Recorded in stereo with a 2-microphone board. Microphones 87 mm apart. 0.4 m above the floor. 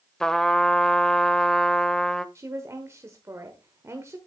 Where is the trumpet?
5° left (ahead or behind), 0.5 m.